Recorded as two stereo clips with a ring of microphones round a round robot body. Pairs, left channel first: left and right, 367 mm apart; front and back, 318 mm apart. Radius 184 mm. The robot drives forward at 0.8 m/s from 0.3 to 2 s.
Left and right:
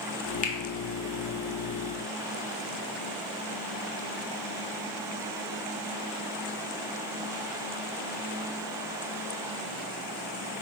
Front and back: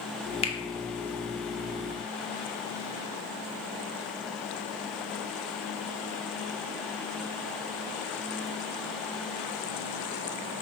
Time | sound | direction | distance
0.4 | a finger snap | 45° left | 0.5 m